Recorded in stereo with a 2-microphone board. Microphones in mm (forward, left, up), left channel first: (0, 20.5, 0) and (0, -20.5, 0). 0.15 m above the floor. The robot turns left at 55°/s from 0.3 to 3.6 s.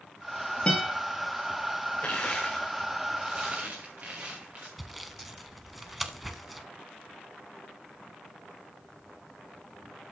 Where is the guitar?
25° left (ahead or behind), 5 m; by 0.9 s 10° left (ahead or behind), 5 m.